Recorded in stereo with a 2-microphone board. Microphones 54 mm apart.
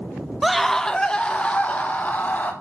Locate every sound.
0.4 s a scream: 5° right (ahead or behind), 0.7 m; by 2.5 s 30° left (ahead or behind), 1.8 m